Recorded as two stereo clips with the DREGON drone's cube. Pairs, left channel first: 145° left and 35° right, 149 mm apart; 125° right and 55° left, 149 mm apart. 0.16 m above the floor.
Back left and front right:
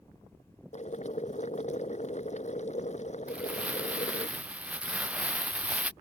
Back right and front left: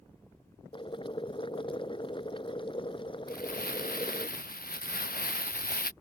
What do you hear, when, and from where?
0.7 s boiling: straight behind
3.3 s crumpling: 115° right